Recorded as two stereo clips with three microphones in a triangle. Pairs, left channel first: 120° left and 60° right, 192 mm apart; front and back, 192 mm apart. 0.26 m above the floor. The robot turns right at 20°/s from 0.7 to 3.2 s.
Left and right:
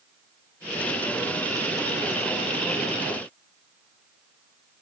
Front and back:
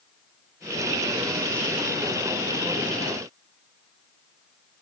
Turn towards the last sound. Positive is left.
No sound to turn to.